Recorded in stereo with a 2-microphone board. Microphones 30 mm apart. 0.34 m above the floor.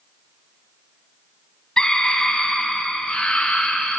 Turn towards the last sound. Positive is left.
turn(degrees=55)  # may be behind; listen again after turning